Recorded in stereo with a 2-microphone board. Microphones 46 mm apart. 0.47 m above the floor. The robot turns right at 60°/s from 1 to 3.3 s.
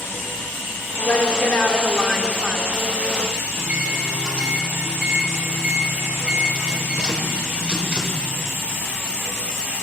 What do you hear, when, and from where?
1.1 s a woman speaking: 90° left, 0.8 m; by 2.7 s 170° right, 0.8 m
3.6 s a microwave: 25° right (ahead or behind), 1.1 m